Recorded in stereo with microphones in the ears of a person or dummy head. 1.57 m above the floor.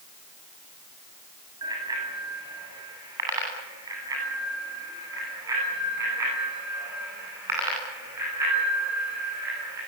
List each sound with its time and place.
1.6 s a bicycle bell: 25° right (ahead or behind), 8.5 m; by 9.8 s 20° right (ahead or behind), 15 m